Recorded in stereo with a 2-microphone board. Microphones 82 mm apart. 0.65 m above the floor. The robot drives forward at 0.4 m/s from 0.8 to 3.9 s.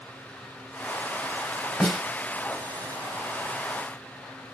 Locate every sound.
1.8 s a snare drum: 10° left (ahead or behind), 1.4 m